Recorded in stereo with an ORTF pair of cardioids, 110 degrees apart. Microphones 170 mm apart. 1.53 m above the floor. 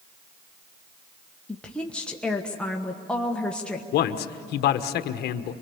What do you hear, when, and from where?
1.5 s a woman speaking: 5° left, 1.4 m
3.9 s a man speaking: 70° left, 1.3 m